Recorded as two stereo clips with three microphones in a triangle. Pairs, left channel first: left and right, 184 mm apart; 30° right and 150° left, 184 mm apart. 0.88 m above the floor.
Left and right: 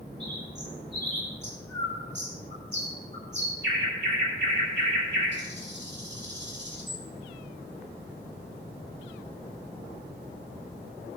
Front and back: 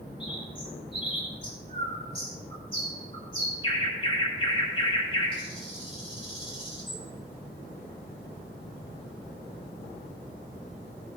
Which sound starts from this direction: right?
A bird, at 0.2 s.